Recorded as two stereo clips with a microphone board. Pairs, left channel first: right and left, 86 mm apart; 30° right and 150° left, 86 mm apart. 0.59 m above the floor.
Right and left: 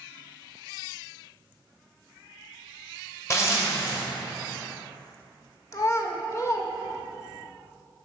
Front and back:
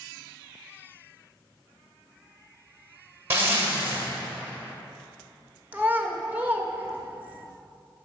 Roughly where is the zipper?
Behind right.